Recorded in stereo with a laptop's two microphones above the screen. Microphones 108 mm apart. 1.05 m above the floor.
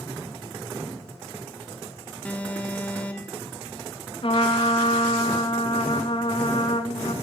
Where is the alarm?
15° left (ahead or behind), 1.9 m.